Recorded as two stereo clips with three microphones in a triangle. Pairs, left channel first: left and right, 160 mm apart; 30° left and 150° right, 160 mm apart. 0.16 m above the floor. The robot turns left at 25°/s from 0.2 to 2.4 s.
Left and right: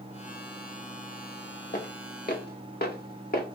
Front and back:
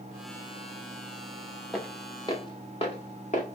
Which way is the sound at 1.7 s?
120° left.